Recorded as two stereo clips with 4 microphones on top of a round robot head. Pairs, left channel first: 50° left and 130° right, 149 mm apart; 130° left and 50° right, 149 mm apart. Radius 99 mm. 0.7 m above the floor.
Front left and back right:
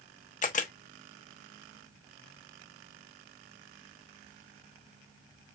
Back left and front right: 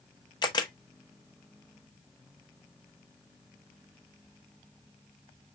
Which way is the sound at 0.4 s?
70° left.